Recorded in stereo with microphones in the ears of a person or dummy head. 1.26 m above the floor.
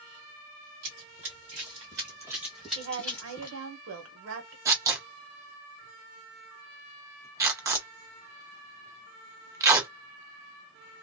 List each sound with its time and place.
0.8 s running footsteps: 45° right (ahead or behind), 1.7 m; by 3.6 s 20° left (ahead or behind), 1.4 m
2.8 s a woman speaking: 70° right (ahead or behind), 1.1 m
4.7 s tearing paper: 20° right (ahead or behind), 0.8 m